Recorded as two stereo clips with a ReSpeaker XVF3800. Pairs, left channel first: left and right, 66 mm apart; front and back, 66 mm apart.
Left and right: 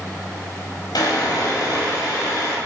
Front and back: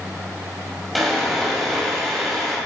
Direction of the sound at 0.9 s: 90° left.